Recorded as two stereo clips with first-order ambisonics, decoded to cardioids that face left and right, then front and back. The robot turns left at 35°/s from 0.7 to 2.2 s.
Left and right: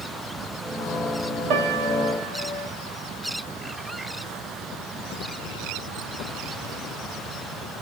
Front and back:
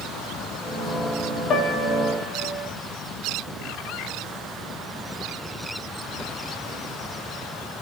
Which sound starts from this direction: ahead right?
A piano, at 1.5 s.